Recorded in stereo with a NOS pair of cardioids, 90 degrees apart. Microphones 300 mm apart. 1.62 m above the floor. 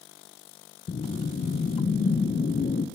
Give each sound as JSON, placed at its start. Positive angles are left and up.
{"t": 0.9, "sound": "a whoosh", "azimuth_deg": 30, "distance_m": 1.4}